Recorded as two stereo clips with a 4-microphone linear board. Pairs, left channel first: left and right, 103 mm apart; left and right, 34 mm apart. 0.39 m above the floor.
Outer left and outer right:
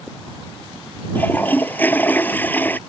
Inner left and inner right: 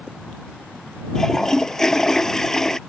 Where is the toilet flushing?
15° left (ahead or behind).